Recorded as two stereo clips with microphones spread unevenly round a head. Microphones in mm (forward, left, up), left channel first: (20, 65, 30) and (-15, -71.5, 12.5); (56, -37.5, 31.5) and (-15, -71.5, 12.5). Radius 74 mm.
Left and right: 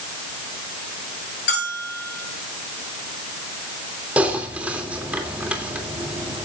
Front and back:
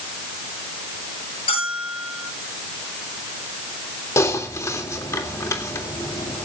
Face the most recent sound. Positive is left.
turn(degrees=-20)